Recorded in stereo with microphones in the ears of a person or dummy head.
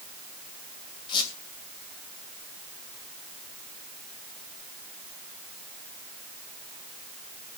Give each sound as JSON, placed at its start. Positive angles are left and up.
{"t": 1.1, "sound": "a squeak", "side_deg": 30, "distance_m": 2.5}